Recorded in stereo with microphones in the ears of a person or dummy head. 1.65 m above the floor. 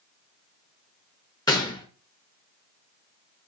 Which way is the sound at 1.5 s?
20° left (ahead or behind).